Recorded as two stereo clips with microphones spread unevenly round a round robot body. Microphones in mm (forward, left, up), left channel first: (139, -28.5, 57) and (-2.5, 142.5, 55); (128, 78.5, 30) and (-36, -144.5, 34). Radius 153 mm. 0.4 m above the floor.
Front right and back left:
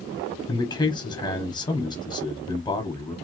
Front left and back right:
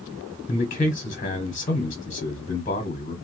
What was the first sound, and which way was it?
A man speaking, 10° left.